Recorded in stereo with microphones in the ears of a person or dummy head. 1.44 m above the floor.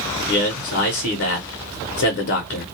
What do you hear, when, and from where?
0.3 s a man speaking: 55° left (ahead or behind), 0.7 m